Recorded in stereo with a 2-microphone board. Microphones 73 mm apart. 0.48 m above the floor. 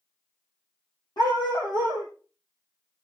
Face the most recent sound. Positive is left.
turn(degrees=65)  # may be behind; listen again after turning